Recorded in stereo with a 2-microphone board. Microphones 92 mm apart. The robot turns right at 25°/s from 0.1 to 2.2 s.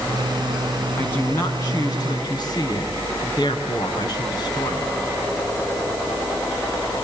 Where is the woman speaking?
20° left, 4 m; by 5.0 s 50° left, 4 m.